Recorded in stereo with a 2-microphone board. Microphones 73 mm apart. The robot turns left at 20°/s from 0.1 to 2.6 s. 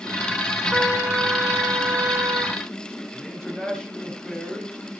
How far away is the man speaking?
About 5 m.